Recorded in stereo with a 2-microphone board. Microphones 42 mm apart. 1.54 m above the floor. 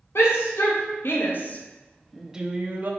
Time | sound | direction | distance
0.1 | a shout | 70° left (ahead or behind) | 1.3 m